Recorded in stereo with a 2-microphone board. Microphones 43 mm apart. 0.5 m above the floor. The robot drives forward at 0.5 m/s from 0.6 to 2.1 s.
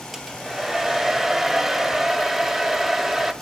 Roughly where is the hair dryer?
Centre.